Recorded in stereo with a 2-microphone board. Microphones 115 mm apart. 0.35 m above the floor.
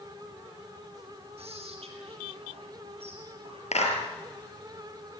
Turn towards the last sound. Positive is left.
turn(degrees=80)